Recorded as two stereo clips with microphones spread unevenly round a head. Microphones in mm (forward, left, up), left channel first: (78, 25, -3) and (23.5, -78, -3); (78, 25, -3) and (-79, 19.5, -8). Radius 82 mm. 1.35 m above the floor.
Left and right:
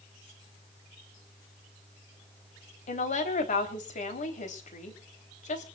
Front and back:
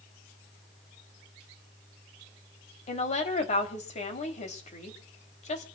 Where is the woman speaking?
50° left, 3.5 m.